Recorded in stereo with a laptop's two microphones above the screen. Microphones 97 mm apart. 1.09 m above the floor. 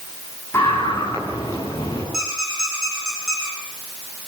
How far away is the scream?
About 10 m.